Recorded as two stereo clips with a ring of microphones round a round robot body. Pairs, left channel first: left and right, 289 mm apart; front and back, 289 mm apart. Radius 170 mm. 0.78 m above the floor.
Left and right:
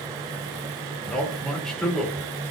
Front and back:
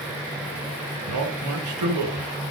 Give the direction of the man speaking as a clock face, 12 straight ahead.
6 o'clock.